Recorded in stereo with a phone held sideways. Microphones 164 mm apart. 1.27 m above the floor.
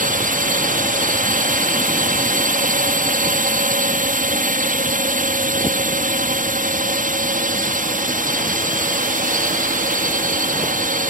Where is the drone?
55° right (ahead or behind).